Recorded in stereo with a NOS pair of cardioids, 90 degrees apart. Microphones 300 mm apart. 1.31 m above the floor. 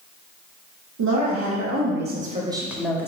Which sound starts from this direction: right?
A woman speaking, at 1.0 s.